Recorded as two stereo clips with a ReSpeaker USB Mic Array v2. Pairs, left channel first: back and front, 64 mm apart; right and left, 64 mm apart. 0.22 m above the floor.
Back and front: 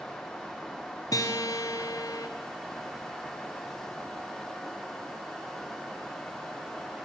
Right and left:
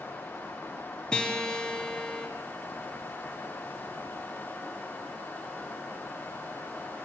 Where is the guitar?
165° right, 2.5 m.